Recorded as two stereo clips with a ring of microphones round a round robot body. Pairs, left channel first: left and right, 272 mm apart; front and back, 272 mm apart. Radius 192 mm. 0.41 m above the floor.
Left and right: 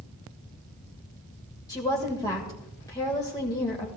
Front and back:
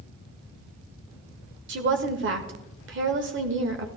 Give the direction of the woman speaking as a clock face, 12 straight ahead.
7 o'clock.